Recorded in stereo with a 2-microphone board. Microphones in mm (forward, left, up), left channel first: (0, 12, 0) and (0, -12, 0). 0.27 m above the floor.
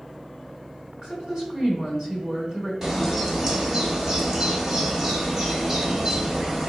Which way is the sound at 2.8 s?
30° right (ahead or behind).